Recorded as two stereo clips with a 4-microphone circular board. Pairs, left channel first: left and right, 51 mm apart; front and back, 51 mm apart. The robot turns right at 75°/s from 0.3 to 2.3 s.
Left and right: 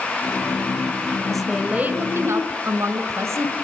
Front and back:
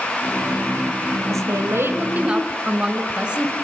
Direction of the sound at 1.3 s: 175° left.